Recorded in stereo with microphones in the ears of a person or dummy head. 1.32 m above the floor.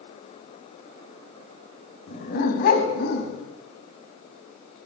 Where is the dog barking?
45° left (ahead or behind), 4 m; by 3.4 s 60° left (ahead or behind), 4.5 m.